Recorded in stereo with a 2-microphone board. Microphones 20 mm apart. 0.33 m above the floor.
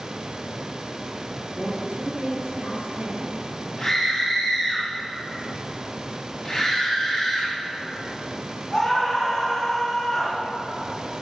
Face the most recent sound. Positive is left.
turn(degrees=20)  # may be behind; listen again after turning